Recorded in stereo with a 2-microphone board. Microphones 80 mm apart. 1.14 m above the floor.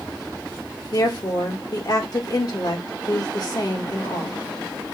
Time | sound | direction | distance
0.9 | a woman speaking | 50° left (ahead or behind) | 1.3 m